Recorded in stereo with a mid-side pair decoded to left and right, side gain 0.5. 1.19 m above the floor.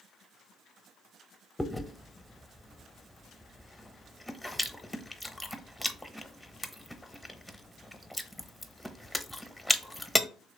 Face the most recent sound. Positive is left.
turn(degrees=5)